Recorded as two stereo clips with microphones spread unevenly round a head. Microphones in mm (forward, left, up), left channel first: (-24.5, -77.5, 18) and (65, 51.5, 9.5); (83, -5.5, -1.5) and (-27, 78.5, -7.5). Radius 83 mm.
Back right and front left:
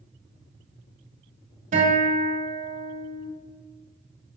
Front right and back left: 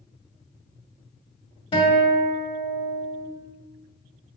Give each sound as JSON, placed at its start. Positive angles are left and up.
{"t": 1.7, "sound": "a guitar", "azimuth_deg": 15, "distance_m": 2.5}